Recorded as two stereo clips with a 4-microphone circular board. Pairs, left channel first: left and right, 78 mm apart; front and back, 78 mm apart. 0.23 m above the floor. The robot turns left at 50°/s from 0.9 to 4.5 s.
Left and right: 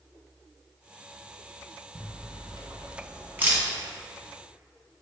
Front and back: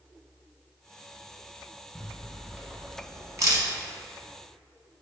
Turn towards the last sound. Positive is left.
turn(degrees=155)